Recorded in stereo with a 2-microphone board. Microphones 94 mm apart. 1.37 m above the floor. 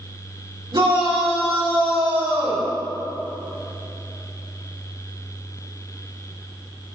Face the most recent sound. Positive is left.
turn(degrees=-85)